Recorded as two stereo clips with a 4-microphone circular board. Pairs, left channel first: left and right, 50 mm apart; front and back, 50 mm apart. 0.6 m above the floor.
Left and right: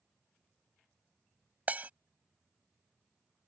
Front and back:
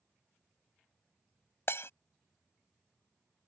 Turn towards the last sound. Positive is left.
turn(degrees=-35)